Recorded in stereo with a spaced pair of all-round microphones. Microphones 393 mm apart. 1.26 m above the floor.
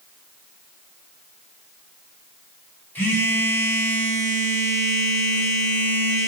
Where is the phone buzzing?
5° left (ahead or behind), 0.9 m.